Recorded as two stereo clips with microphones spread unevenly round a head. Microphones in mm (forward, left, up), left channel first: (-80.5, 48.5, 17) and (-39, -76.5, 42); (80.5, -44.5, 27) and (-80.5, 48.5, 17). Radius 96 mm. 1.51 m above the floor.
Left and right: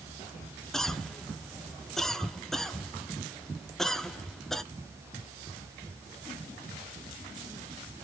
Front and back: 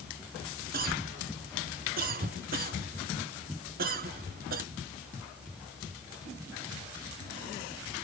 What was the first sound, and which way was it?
A cough, 165° right.